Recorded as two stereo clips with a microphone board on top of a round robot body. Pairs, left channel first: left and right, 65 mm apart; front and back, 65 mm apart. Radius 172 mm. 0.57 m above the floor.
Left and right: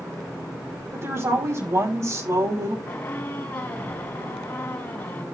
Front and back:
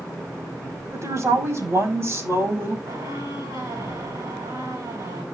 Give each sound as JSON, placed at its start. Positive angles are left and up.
{"t": 0.9, "sound": "a woman speaking", "azimuth_deg": -140, "distance_m": 5.5}
{"t": 2.9, "sound": "a squeak", "azimuth_deg": 140, "distance_m": 3.5}